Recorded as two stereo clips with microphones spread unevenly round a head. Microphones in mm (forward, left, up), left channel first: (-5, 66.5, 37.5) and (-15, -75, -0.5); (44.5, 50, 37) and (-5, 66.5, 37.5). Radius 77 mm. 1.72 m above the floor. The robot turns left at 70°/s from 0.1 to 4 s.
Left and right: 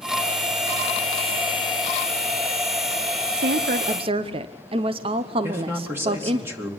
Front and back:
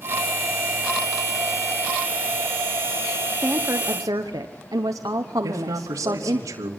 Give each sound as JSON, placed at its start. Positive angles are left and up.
{"t": 3.4, "sound": "a woman speaking", "azimuth_deg": -110, "distance_m": 0.8}
{"t": 5.4, "sound": "a man speaking", "azimuth_deg": -170, "distance_m": 2.5}